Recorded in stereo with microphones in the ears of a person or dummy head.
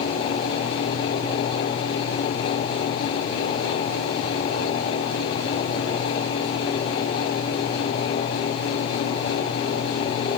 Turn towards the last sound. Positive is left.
No sound to turn to.